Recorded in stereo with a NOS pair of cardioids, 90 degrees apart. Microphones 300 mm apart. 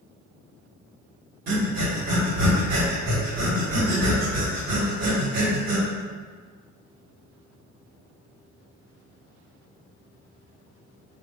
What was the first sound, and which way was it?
Breathing, 60° right.